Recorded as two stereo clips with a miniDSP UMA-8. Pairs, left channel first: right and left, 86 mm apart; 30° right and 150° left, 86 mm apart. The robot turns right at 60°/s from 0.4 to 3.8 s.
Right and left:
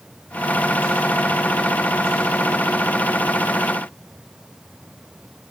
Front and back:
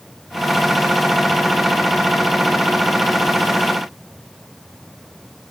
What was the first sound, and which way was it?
Only background noise.